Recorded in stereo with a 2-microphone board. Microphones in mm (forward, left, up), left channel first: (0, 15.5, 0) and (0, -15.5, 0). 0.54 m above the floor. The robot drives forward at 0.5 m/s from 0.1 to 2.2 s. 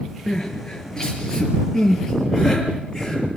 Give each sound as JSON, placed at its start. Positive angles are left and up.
{"t": 0.3, "sound": "crying", "side_deg": 25, "distance_m": 5.0}